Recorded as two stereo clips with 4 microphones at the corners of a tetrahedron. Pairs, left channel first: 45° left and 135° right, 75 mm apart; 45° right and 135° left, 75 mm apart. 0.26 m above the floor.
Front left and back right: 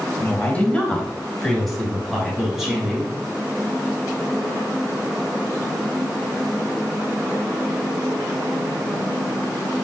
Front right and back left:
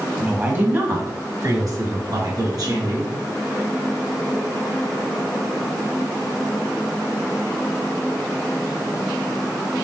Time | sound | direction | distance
0.2 | a woman speaking | 85° left | 1.0 m